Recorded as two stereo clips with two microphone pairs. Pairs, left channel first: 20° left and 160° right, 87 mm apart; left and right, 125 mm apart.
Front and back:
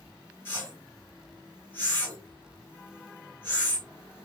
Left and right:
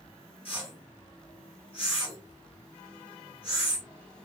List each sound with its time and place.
0.5 s a whoosh: 80° left, 2 m